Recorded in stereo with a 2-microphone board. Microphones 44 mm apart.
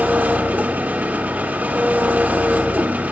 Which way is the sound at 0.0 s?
40° right (ahead or behind).